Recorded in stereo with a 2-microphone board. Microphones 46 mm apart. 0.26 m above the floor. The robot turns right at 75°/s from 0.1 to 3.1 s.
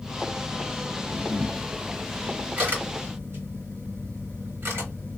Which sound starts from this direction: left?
A camera shutter, at 1.1 s.